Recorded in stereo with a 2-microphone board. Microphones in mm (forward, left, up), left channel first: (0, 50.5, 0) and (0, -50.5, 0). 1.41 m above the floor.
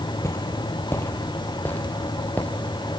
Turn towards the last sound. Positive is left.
turn(degrees=15)  # may be behind; listen again after turning